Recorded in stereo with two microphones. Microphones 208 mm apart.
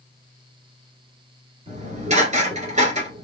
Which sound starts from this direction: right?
Dishes clattering, at 1.7 s.